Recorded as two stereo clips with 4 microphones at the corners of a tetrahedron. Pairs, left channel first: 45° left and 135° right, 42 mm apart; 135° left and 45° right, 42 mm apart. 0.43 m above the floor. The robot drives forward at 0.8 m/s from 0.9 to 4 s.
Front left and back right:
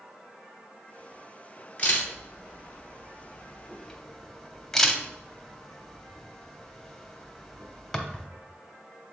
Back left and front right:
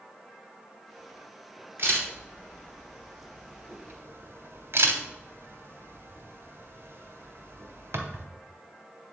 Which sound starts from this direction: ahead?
A camera shutter, at 1.8 s.